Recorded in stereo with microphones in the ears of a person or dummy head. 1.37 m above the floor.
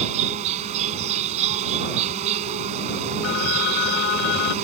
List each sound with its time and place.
0.0 s an insect: 35° right (ahead or behind)
3.2 s a phone ringing: 65° left (ahead or behind)